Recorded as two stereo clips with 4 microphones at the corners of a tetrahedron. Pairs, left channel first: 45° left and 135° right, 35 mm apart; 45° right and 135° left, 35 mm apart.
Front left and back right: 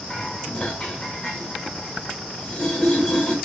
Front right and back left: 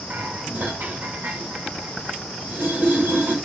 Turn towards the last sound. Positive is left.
turn(degrees=115)